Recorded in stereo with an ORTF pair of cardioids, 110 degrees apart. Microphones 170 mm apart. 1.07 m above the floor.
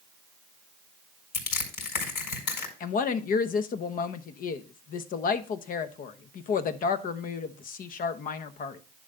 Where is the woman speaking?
55° left, 1.1 m.